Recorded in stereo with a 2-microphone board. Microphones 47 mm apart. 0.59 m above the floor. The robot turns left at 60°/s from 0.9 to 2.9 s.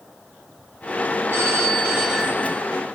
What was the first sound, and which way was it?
A phone ringing, 105° right.